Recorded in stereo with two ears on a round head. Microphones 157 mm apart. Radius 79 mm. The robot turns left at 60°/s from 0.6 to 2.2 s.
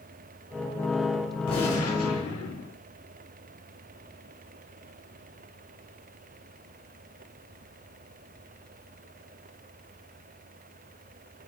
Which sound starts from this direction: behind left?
A gunshot, at 1.5 s.